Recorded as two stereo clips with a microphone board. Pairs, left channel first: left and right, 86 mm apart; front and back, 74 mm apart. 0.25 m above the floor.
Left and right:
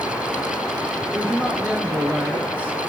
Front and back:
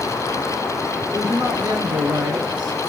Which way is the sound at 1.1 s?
160° right.